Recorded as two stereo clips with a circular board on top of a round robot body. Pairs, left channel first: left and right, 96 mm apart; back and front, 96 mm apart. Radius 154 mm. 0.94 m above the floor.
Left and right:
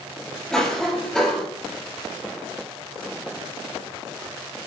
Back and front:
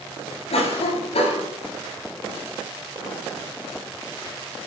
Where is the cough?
175° left, 7.5 m.